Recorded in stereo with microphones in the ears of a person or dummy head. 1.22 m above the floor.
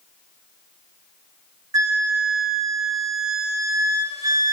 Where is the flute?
10° right (ahead or behind), 0.6 m.